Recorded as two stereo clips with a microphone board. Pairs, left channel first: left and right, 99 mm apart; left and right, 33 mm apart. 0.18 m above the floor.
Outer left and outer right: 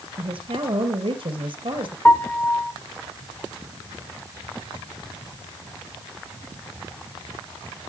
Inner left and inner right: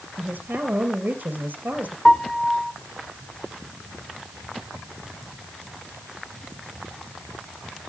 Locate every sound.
0.2 s a woman speaking: 70° right (ahead or behind), 3.5 m
2.0 s a piano: 15° left (ahead or behind), 1.3 m